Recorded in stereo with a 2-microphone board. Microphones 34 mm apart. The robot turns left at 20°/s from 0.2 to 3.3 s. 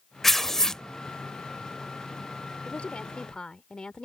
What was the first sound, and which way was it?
Tearing paper, 10° left (ahead or behind).